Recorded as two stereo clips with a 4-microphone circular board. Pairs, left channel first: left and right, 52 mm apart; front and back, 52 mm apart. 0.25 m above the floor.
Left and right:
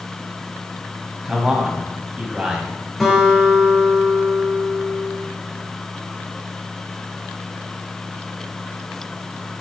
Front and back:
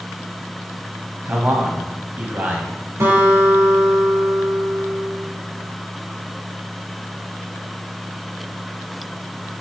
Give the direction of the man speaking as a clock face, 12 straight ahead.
5 o'clock.